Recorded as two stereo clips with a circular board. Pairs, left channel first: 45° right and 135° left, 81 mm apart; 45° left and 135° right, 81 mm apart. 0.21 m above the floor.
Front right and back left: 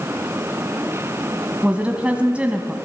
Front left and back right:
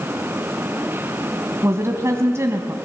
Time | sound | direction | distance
1.6 | a woman speaking | 160° right | 1.4 m